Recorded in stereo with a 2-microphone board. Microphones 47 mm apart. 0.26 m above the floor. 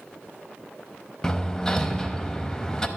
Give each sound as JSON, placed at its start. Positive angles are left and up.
{"t": 1.2, "sound": "hammering", "side_deg": 15, "distance_m": 0.5}